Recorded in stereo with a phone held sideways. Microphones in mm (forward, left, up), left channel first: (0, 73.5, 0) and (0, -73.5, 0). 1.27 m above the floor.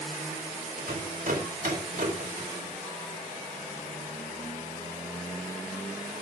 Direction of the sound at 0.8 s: 75° right (ahead or behind).